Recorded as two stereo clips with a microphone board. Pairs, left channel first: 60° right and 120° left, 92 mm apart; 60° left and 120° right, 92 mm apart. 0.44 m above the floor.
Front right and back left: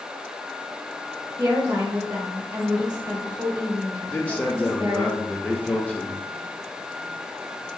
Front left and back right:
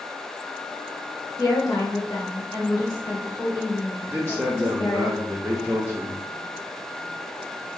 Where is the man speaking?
115° right, 0.9 m.